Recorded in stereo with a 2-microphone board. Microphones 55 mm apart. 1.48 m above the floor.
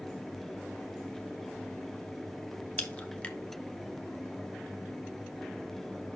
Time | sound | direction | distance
2.8 | a crack | 20° left (ahead or behind) | 0.9 m